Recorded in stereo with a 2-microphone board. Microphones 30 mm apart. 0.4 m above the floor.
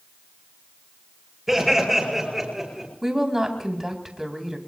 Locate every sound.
1.5 s laughter: 5° right (ahead or behind), 9 m; by 2.9 s 10° right (ahead or behind), 8.5 m
3.0 s a woman speaking: 10° right (ahead or behind), 3 m